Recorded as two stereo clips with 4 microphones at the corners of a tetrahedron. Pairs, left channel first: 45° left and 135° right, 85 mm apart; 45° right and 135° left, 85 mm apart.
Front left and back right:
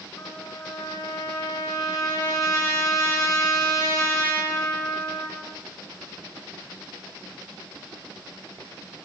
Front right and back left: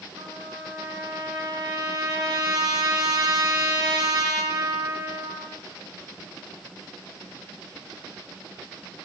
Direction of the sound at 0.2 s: 105° left.